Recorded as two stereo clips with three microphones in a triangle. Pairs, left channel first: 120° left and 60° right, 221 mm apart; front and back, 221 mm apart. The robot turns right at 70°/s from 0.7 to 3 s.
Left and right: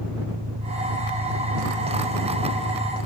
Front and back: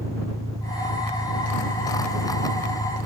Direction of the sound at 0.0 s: 105° right.